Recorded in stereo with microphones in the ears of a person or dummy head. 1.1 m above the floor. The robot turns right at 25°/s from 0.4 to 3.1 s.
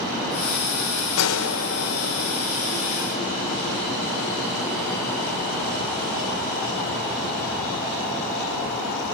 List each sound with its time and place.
1.2 s a gunshot: 75° left (ahead or behind), 2 m; by 3.8 s 30° left (ahead or behind), 2 m